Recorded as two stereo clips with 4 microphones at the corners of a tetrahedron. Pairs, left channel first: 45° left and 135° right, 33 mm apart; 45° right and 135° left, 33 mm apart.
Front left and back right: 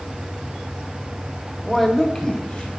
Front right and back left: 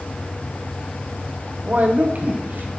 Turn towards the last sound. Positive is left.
turn(degrees=105)